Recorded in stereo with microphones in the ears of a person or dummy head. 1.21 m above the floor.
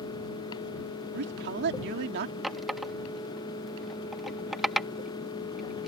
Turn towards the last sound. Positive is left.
turn(degrees=-5)  # may be behind; listen again after turning